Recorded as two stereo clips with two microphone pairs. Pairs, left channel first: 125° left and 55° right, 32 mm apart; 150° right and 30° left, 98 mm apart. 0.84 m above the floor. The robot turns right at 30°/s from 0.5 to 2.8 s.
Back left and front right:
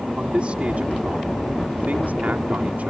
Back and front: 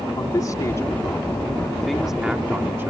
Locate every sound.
0.2 s a man speaking: 100° right; by 2.9 s 30° right